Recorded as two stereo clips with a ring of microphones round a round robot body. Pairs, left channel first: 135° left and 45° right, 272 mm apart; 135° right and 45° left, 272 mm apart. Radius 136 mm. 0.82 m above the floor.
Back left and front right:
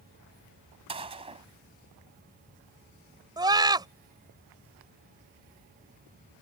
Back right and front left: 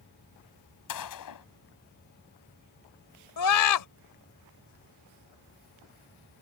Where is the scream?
120° right.